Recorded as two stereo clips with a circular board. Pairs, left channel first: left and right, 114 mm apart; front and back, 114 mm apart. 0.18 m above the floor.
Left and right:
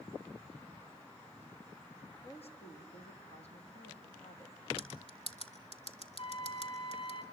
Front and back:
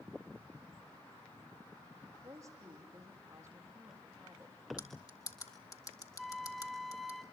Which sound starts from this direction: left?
A flute, at 6.2 s.